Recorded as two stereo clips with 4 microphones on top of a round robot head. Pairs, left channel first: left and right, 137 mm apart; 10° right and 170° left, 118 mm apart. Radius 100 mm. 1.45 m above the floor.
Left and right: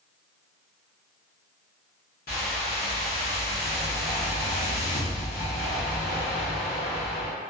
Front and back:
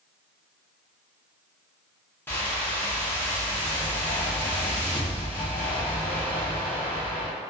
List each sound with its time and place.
2.3 s a whoosh: 60° left, 0.8 m